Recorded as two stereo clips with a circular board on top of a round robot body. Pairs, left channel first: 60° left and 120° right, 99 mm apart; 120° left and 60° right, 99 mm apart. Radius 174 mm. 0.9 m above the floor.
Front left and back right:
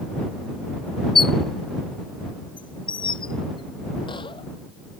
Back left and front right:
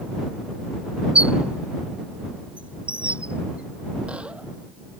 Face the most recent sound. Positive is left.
turn(degrees=20)